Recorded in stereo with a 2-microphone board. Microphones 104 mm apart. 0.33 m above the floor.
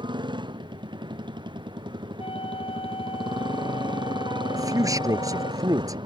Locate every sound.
0.0 s a motorcycle: 45° right (ahead or behind)
2.2 s a flute: 60° left (ahead or behind)
4.5 s a man speaking: 35° right (ahead or behind)